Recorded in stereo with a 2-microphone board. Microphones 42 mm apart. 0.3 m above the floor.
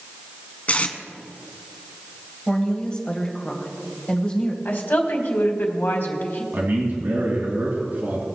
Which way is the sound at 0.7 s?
35° left (ahead or behind).